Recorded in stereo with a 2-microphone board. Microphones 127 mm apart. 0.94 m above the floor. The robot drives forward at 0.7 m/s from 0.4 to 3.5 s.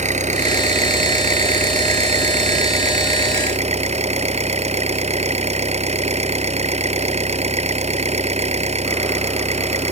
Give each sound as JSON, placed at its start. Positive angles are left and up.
{"t": 0.0, "sound": "an engine running", "side_deg": -80}